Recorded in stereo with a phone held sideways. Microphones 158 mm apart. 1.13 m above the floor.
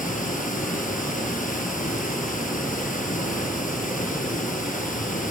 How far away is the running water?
About 6.5 m.